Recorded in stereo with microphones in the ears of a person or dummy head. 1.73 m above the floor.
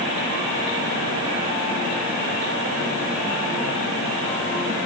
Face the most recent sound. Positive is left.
No sound to turn to.